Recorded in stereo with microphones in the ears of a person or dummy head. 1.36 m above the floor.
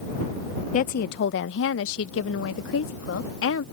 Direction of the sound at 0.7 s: 45° left (ahead or behind).